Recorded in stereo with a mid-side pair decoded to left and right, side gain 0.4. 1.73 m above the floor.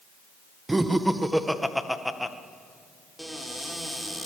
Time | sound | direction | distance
0.7 | laughter | 20° right | 1.8 m
3.2 | a cupboard door | 5° right | 4 m